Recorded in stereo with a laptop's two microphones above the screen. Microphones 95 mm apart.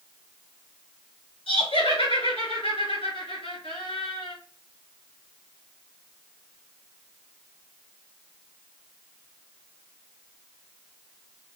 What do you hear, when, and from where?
1.5 s laughter: 75° left (ahead or behind), 2.5 m